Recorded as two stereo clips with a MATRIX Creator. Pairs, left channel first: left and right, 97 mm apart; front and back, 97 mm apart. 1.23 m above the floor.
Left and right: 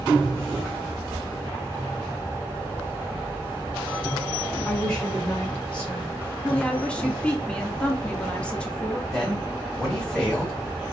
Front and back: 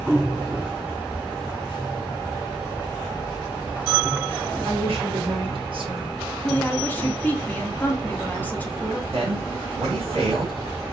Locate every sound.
4.7 s a woman speaking: 170° left, 1.5 m; by 6.2 s 165° left, 0.7 m
6.4 s a woman speaking: 30° left, 0.6 m
9.1 s a man speaking: 170° left, 1.7 m